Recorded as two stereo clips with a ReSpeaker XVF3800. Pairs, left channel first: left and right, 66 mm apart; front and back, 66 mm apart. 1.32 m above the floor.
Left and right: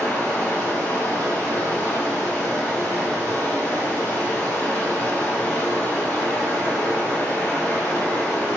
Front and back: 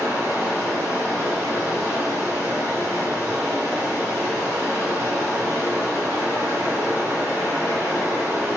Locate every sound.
0.0 s running water: 135° left, 1.7 m